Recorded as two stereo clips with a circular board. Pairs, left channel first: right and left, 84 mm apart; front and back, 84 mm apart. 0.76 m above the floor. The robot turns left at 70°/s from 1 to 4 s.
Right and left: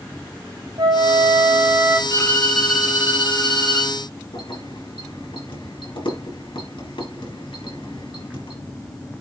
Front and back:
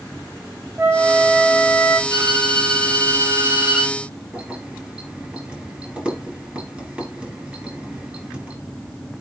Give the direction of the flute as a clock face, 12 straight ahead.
8 o'clock.